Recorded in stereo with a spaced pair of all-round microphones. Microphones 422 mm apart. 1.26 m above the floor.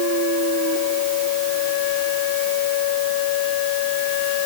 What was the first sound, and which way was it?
Only background noise.